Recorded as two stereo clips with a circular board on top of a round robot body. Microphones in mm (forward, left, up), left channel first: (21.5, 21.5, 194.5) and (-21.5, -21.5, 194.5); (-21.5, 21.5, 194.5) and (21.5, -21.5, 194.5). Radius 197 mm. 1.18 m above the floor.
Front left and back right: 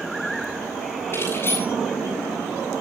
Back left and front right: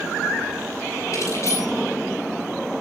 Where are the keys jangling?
95° left, 10 m.